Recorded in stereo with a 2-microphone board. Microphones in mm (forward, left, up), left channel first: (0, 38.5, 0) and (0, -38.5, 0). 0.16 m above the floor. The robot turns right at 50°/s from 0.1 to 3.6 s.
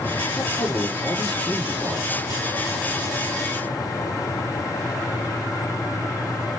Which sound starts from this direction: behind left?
A man speaking, at 0.4 s.